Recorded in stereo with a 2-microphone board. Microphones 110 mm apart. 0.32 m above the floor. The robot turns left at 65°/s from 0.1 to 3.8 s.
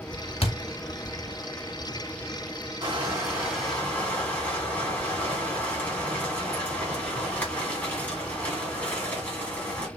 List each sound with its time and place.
0.4 s a thud: 60° left (ahead or behind), 0.7 m; by 0.5 s 55° left (ahead or behind), 0.7 m
2.8 s crushing: 130° right, 1.8 m; by 9.9 s 165° left, 1.8 m